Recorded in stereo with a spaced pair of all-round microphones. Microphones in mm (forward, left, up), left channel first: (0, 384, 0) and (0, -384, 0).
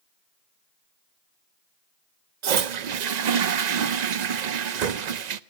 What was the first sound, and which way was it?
A toilet flushing, 65° right (ahead or behind).